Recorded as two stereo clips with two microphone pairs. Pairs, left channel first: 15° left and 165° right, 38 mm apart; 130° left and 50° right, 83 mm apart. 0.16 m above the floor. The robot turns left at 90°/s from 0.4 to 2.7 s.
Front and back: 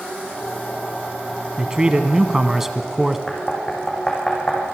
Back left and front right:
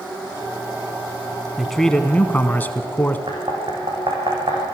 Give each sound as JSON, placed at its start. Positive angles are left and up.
{"t": 1.6, "sound": "a man speaking", "azimuth_deg": -135, "distance_m": 1.1}
{"t": 3.3, "sound": "knocking", "azimuth_deg": -65, "distance_m": 6.0}